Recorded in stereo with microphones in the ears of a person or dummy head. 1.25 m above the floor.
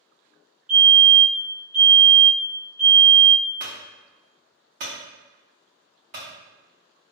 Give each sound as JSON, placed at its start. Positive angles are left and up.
{"t": 0.7, "sound": "a fire alarm", "side_deg": -5, "distance_m": 1.8}
{"t": 3.6, "sound": "a clunk", "side_deg": -30, "distance_m": 1.1}